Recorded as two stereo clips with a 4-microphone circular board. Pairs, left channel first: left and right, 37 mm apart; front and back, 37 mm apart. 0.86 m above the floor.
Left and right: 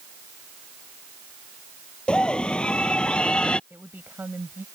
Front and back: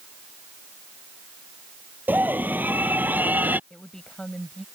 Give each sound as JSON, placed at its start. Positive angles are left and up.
{"t": 2.1, "sound": "a scream", "azimuth_deg": 150}
{"t": 3.7, "sound": "a woman speaking", "azimuth_deg": -70}